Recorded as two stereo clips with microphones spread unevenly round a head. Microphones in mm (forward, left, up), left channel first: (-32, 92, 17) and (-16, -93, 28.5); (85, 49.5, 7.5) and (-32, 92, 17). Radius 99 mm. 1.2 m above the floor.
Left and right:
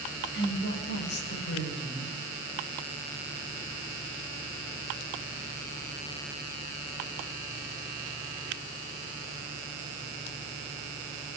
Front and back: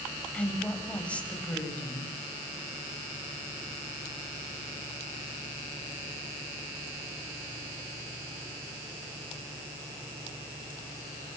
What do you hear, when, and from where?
0.3 s a woman speaking: 60° left, 8.5 m